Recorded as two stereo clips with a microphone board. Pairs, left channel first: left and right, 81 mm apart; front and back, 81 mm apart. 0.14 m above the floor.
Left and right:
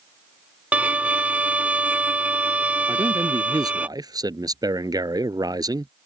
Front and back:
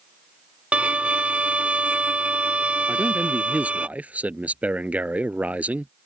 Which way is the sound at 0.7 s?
130° right.